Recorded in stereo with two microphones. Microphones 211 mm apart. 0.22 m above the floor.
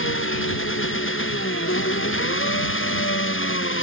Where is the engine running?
75° left (ahead or behind).